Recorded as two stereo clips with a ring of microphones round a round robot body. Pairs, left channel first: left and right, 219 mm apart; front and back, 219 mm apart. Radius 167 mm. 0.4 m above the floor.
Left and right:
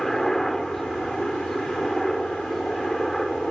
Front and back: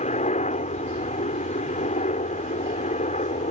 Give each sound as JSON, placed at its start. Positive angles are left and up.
{"t": 0.0, "sound": "a helicopter", "azimuth_deg": 5}